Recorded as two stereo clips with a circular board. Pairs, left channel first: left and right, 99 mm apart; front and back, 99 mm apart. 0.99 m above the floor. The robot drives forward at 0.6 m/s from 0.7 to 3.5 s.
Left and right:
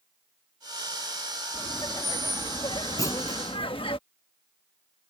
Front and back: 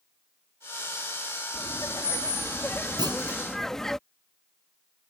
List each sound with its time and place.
1.5 s laughter: 45° left; by 4.0 s 85° left
3.0 s a clunk: 140° left; by 3.4 s 145° left